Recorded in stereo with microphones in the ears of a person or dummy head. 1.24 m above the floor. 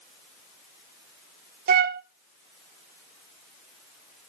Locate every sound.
1.7 s a flute: 45° right (ahead or behind), 0.7 m